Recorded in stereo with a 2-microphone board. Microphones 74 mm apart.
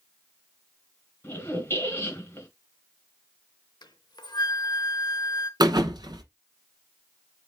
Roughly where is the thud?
Right.